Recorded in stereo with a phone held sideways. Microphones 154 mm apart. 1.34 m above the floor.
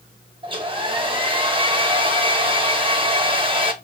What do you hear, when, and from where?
0.4 s a hair dryer: 35° right (ahead or behind), 0.7 m